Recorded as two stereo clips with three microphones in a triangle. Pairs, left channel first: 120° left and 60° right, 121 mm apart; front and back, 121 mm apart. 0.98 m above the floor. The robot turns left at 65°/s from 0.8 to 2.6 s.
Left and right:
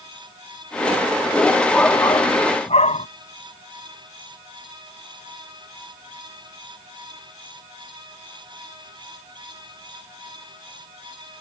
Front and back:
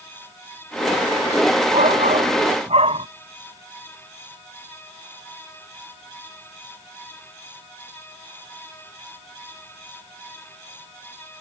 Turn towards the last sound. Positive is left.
turn(degrees=145)